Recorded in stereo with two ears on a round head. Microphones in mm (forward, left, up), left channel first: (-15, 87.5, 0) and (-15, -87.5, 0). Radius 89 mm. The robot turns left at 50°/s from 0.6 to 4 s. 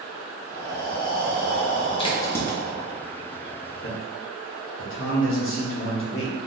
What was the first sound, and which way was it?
Breathing, 145° left.